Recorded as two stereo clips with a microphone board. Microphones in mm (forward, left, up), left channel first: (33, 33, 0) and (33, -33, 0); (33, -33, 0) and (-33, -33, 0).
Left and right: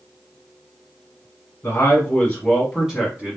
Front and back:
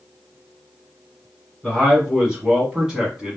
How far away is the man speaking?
About 1.4 m.